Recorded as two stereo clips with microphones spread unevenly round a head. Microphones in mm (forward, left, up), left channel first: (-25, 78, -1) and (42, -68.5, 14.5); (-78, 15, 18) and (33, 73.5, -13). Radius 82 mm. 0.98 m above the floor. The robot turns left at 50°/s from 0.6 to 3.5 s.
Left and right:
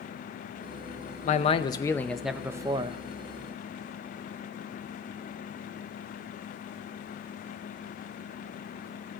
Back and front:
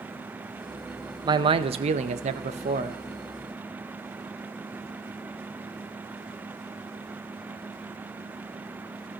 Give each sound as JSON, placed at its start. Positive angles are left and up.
{"t": 1.2, "sound": "a man speaking", "azimuth_deg": 75, "distance_m": 0.6}